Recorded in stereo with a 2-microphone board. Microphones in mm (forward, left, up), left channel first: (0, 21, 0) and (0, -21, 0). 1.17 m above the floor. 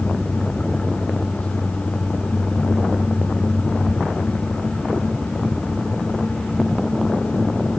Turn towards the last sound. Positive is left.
No sound to turn to.